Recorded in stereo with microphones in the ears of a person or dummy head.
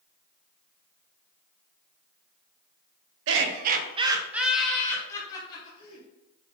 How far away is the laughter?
About 0.6 m.